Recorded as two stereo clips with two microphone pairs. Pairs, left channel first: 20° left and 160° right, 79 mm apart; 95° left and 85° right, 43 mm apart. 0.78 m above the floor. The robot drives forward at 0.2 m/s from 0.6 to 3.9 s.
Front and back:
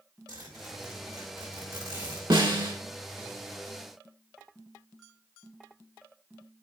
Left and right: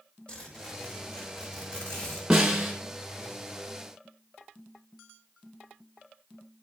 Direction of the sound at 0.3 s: 160° left.